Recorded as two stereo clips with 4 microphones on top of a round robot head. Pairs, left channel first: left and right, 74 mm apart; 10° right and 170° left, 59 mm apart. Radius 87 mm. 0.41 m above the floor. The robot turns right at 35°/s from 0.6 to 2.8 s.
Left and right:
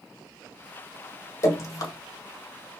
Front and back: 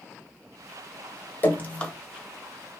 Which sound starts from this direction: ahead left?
Dripping, at 1.4 s.